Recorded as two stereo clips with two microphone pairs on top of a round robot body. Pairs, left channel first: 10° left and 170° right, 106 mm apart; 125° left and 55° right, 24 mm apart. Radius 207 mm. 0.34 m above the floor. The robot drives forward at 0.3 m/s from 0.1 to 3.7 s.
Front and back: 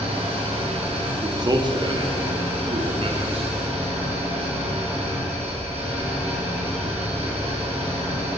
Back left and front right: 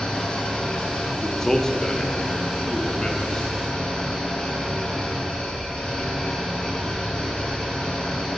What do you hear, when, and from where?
0.0 s an engine running: 175° left, 2 m; by 8.4 s straight behind, 3 m
1.2 s a man speaking: 165° right, 0.9 m; by 3.5 s 175° right, 1.3 m